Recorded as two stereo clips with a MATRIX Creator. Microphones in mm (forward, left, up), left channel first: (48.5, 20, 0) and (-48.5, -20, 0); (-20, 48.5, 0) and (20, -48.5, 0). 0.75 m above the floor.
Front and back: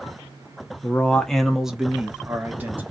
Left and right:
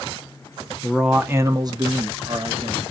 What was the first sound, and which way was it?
A man speaking, 45° left.